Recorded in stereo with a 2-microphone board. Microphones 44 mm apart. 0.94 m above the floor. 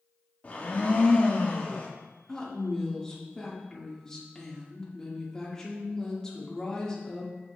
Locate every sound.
0.4 s a blender: 40° left (ahead or behind), 1.3 m
2.3 s a woman speaking: 15° left (ahead or behind), 1.5 m